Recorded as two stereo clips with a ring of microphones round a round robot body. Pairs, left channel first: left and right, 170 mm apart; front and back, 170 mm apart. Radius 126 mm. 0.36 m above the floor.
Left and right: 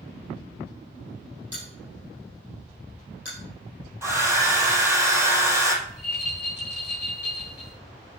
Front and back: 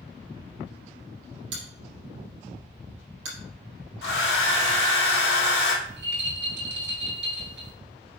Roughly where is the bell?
Behind.